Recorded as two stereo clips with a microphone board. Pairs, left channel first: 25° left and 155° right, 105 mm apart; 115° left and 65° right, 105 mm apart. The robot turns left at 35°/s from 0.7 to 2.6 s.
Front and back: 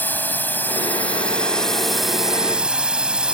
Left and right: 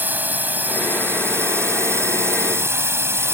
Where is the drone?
20° right; by 3.4 s 90° right.